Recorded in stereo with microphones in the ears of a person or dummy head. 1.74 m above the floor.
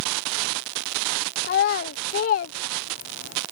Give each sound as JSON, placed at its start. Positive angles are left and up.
{"t": 1.4, "sound": "a child speaking", "side_deg": 45}